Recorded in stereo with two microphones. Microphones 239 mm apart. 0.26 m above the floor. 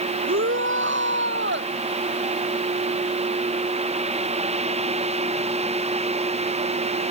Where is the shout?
55° right (ahead or behind); by 1.7 s 50° right (ahead or behind).